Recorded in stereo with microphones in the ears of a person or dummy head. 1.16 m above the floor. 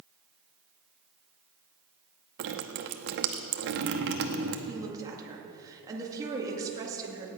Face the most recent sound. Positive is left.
turn(degrees=-20)  # may be behind; listen again after turning